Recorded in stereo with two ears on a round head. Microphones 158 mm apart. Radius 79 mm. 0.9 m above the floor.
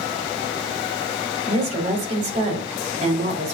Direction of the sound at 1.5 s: 40° right (ahead or behind).